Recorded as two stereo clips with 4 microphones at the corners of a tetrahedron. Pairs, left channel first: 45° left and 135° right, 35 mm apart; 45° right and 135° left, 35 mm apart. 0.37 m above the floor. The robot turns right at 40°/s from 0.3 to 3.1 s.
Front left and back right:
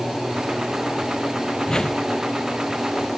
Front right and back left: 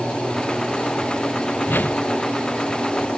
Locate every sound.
1.7 s a whoosh: 25° right; by 2.0 s 10° right